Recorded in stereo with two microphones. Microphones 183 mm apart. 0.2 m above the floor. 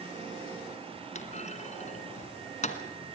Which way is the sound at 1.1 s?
40° left (ahead or behind).